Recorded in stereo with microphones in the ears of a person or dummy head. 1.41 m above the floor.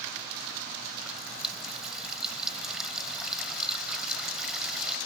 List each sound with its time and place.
1.0 s a running tap: 5° right (ahead or behind)